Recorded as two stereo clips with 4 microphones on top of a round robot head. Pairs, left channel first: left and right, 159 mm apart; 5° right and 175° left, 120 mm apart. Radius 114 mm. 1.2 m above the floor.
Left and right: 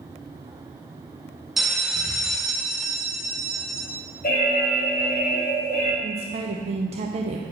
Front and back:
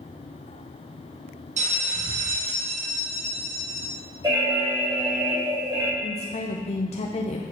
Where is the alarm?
120° left, 2.5 m.